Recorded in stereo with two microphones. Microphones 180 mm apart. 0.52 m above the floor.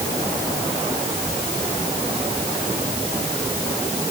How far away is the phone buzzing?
I don't hear a phone buzzing.